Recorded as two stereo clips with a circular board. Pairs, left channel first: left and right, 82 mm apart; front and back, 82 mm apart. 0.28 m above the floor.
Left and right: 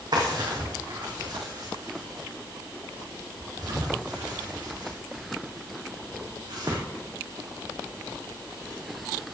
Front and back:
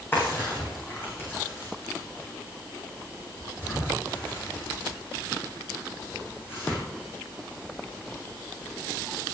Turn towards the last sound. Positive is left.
turn(degrees=-60)